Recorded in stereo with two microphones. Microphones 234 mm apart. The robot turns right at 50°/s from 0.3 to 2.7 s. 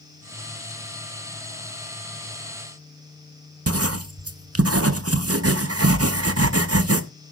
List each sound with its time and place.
3.7 s writing: 80° right, 0.8 m